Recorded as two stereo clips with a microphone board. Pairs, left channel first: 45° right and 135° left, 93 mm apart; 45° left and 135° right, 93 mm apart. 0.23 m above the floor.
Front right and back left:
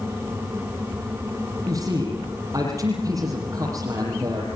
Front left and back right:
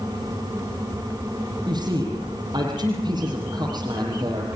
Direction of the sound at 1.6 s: 175° right.